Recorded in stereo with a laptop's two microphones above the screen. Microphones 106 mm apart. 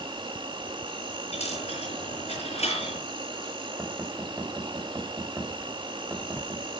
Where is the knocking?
25° right (ahead or behind), 3.5 m.